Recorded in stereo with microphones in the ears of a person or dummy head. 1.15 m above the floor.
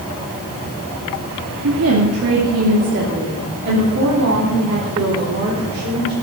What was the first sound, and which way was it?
A woman speaking, 75° right (ahead or behind).